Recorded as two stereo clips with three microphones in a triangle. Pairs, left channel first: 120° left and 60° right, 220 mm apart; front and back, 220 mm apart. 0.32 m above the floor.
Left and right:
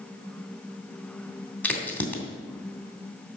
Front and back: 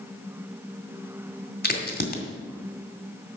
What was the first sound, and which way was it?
A crack, 40° left.